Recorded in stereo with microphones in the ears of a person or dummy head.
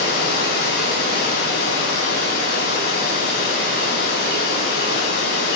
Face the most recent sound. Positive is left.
turn(degrees=60)  # may be behind; listen again after turning